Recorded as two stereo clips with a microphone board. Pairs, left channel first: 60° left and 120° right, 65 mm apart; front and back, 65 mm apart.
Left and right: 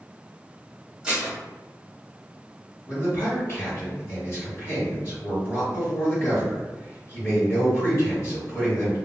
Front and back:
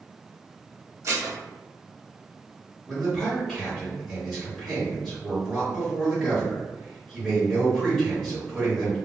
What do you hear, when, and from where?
1.0 s dishes clattering: 170° left, 0.9 m
2.9 s a man speaking: 80° left, 1.4 m